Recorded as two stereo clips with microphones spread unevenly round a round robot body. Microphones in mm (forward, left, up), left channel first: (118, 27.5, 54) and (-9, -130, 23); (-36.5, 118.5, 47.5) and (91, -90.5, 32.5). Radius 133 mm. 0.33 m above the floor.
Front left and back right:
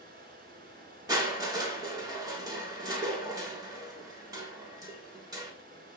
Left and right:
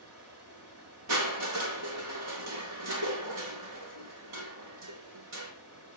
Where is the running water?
85° right, 4 m.